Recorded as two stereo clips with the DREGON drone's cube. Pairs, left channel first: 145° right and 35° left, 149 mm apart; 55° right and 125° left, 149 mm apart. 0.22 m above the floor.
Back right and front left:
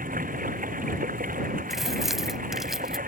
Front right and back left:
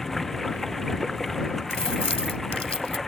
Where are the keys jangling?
55° right.